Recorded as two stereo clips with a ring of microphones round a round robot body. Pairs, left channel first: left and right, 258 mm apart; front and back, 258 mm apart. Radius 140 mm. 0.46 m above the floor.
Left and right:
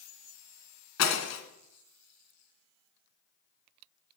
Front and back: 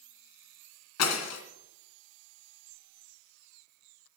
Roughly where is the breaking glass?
Ahead left.